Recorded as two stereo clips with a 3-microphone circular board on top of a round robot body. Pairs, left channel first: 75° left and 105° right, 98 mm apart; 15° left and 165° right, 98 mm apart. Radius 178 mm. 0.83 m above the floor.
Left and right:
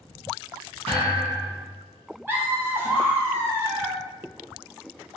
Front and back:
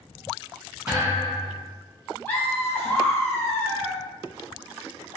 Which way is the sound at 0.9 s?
95° right.